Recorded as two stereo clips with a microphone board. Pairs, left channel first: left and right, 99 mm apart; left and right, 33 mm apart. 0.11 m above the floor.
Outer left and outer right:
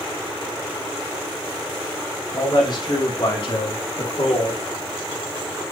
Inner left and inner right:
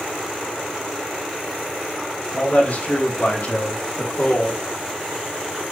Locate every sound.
2.3 s a man speaking: 50° left (ahead or behind), 4.5 m; by 4.6 s 60° left (ahead or behind), 2.5 m